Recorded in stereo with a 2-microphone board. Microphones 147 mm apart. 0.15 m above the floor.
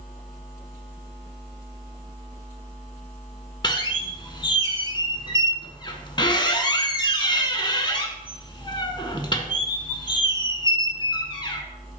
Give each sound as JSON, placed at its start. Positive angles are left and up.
{"t": 3.6, "sound": "a squeak", "side_deg": 35, "distance_m": 0.6}